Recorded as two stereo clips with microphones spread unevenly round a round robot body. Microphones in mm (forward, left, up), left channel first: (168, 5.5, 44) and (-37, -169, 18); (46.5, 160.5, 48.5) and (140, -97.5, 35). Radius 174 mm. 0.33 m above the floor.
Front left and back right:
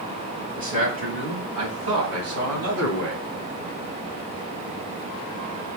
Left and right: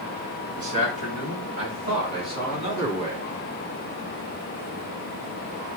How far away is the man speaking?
About 3 m.